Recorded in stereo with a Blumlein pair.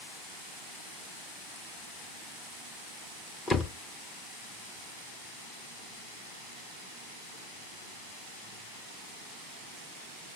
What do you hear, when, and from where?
3.5 s a door slam: 20° left, 0.9 m